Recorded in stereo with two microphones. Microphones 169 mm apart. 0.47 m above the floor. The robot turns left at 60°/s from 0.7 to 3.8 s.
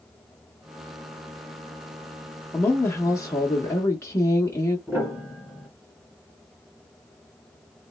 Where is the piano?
10° right (ahead or behind), 1.4 m.